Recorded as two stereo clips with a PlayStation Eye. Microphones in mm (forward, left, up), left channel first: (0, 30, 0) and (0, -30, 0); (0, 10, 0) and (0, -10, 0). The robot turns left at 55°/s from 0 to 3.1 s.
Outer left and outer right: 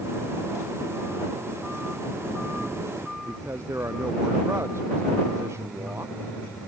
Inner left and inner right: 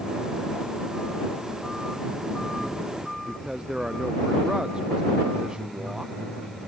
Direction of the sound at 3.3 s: 50° right (ahead or behind).